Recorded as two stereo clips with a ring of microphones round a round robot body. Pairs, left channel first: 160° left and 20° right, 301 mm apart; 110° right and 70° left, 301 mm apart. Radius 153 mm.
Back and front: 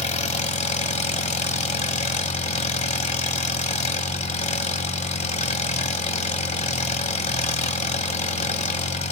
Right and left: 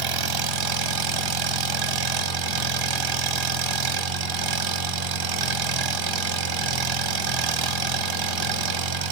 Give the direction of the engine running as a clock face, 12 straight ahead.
9 o'clock.